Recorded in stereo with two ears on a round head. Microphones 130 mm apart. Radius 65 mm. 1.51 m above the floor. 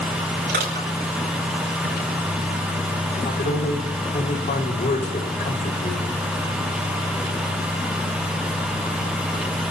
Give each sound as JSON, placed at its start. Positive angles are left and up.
{"t": 0.5, "sound": "crushing", "side_deg": -70, "distance_m": 8.0}
{"t": 3.1, "sound": "a man speaking", "side_deg": 55, "distance_m": 4.5}